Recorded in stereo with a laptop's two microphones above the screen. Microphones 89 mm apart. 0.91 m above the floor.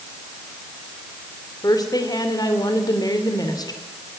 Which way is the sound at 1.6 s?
45° left (ahead or behind).